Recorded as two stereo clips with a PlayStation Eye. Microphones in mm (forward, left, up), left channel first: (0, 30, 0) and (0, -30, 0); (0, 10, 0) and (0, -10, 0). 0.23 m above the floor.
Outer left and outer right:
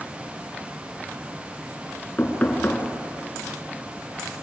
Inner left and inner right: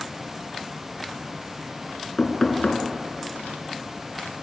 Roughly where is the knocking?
Left.